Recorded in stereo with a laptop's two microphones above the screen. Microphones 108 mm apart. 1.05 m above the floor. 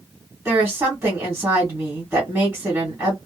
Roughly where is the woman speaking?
Centre.